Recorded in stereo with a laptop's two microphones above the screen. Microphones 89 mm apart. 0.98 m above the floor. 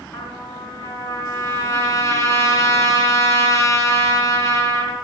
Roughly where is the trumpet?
Left.